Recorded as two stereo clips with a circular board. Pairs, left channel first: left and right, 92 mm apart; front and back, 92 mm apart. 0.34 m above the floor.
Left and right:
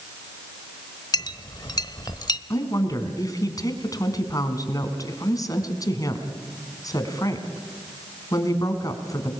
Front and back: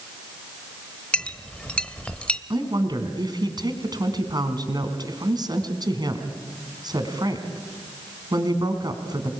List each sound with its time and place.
1.1 s a clink: 75° left, 0.9 m
2.5 s a woman speaking: 140° left, 3.5 m